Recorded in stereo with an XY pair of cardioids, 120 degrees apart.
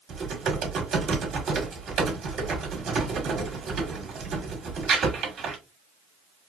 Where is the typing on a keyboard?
55° right, 1.8 m.